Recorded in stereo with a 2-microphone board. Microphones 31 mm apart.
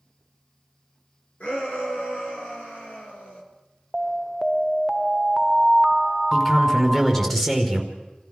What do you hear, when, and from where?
1.4 s a shout: 50° left (ahead or behind), 5.5 m
3.9 s an alarm: 10° right (ahead or behind), 0.6 m
6.3 s a man speaking: 15° left (ahead or behind), 4.5 m